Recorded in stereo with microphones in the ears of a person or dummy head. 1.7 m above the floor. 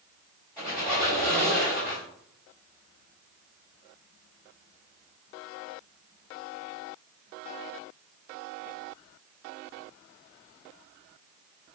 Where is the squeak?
30° right (ahead or behind), 1.6 m.